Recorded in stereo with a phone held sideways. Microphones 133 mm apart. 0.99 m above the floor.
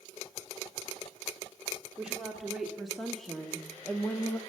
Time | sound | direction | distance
2.0 | a woman speaking | 5° right (ahead or behind) | 2.5 m